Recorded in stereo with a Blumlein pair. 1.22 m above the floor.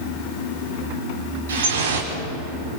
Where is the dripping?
65° right, 3.5 m.